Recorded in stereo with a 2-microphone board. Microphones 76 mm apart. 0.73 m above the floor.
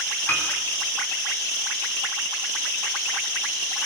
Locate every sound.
0.3 s a piano: 30° left (ahead or behind), 7 m